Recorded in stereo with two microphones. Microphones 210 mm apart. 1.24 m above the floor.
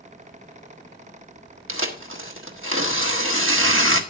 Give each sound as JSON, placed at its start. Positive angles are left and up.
{"t": 1.7, "sound": "tearing paper", "side_deg": -75, "distance_m": 1.6}